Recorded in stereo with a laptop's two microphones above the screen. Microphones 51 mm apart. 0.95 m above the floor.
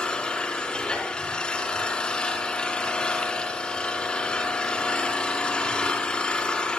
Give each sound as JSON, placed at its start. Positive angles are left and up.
{"t": 0.0, "sound": "an engine running", "side_deg": 15, "distance_m": 4.5}